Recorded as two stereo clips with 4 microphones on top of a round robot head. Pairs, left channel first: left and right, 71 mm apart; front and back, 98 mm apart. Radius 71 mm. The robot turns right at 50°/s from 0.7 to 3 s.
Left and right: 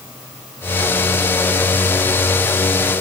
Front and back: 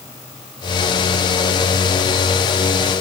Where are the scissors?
I don't hear scissors.